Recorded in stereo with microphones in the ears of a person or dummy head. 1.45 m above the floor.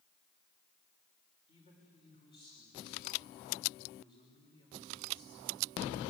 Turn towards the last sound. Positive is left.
turn(degrees=30)  # may be behind; listen again after turning